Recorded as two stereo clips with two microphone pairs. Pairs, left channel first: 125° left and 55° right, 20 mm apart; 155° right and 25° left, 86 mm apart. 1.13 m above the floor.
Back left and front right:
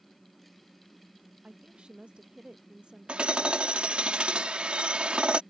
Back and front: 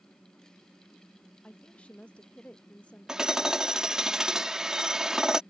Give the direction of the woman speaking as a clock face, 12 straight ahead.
3 o'clock.